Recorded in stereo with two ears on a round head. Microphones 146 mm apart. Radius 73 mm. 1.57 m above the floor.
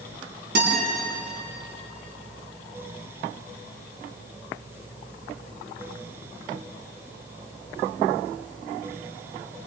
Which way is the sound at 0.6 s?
65° right (ahead or behind).